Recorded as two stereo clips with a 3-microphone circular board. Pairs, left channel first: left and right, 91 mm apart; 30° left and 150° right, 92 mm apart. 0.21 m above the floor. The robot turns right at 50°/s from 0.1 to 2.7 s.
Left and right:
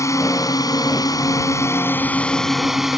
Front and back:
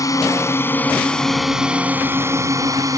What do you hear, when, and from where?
0.0 s a drone: 55° left; by 3.0 s 175° right